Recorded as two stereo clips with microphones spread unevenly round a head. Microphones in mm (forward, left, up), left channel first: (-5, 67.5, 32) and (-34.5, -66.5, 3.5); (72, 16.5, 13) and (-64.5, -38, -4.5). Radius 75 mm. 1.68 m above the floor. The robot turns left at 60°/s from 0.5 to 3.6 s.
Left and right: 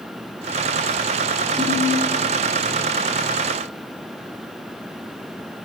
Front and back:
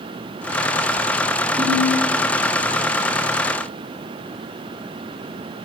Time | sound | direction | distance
1.6 | a ringtone | 165° left | 5 m